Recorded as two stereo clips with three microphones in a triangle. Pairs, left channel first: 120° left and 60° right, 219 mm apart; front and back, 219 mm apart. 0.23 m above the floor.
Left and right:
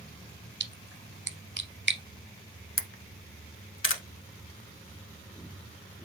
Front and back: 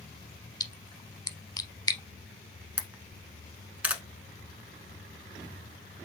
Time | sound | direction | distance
0.6 | a splash | 70° right | 0.6 m
2.8 | a camera shutter | 100° left | 0.6 m